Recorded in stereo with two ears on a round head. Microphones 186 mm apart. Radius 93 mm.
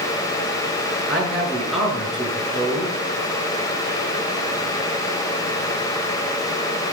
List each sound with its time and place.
1.1 s a man speaking: centre (ahead or behind), 6.5 m